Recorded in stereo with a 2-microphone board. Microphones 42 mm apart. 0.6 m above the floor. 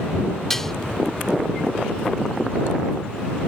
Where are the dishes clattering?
10° left (ahead or behind).